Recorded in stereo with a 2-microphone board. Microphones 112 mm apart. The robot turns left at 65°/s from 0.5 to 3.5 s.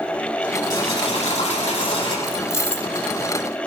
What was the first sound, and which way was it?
Boiling, 145° left.